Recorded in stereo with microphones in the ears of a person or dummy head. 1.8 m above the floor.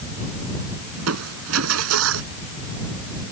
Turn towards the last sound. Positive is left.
turn(degrees=-85)